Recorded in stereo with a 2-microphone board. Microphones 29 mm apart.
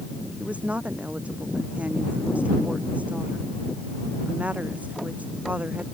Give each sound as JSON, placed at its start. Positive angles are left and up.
{"t": 0.4, "sound": "a woman speaking", "side_deg": -50}